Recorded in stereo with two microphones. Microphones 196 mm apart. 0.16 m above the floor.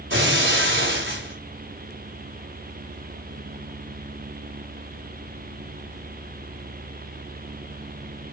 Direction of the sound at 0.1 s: 80° right.